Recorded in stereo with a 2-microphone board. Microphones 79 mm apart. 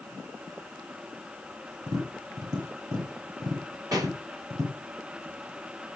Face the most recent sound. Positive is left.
turn(degrees=-55)  # may be behind; listen again after turning